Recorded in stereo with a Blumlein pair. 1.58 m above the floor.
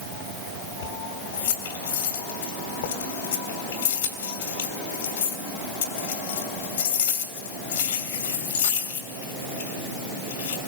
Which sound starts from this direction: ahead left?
Keys jangling, at 0.8 s.